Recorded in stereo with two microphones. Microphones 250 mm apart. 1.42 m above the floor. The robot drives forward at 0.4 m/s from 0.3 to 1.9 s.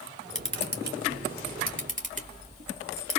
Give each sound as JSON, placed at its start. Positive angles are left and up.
{"t": 0.3, "sound": "a camera shutter", "side_deg": -50, "distance_m": 1.1}